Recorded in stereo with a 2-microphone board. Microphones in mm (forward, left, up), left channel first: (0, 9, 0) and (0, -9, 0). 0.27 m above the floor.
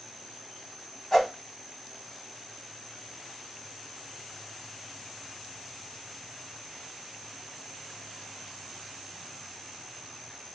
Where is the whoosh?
25° left (ahead or behind), 1.2 m.